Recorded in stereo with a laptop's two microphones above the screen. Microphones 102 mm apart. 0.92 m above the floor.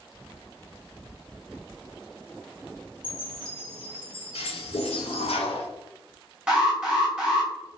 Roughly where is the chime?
Left.